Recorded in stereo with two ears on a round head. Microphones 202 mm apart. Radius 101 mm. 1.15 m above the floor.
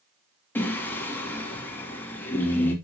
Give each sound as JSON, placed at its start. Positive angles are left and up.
{"t": 0.6, "sound": "singing", "side_deg": 10, "distance_m": 2.5}